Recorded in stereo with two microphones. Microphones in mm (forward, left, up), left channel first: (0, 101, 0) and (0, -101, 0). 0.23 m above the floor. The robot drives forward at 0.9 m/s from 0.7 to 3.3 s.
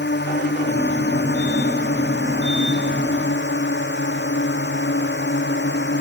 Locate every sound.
0.0 s a drone: 60° left (ahead or behind); by 6.0 s 65° left (ahead or behind)